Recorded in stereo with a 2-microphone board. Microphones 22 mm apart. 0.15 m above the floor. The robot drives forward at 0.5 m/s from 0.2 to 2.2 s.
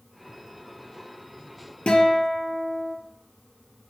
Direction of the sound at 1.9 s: 60° left (ahead or behind).